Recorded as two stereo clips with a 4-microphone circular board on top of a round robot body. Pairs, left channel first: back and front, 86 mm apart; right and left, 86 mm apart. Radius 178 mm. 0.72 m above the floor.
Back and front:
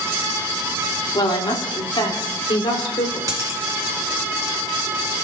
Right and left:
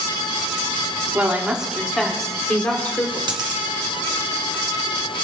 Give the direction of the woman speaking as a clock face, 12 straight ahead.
7 o'clock.